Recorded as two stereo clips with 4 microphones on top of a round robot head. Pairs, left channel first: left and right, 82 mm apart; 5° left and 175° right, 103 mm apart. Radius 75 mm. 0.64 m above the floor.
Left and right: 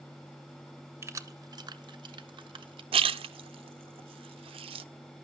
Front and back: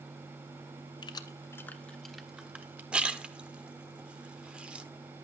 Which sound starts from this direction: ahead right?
Keys jangling, at 1.0 s.